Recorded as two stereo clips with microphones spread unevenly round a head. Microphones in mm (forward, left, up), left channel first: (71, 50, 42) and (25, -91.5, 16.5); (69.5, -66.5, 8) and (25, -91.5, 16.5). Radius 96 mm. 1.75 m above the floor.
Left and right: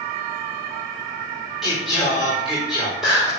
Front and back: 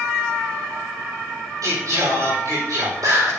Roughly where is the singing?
Behind.